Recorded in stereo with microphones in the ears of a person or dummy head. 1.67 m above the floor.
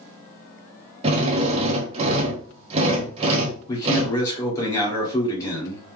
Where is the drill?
30° right (ahead or behind), 0.8 m.